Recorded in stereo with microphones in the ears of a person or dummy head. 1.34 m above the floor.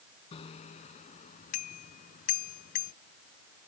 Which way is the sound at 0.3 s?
30° left (ahead or behind).